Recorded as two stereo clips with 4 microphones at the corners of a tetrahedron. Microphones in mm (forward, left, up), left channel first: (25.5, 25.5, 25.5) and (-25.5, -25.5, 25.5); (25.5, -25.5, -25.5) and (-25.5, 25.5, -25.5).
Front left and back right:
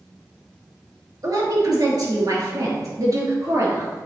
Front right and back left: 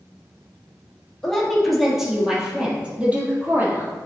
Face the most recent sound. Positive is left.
turn(degrees=-170)